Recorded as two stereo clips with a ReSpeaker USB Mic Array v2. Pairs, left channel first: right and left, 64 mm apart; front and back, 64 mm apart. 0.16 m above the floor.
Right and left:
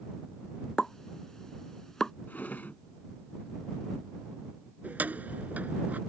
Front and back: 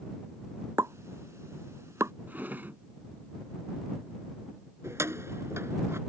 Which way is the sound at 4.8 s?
150° left.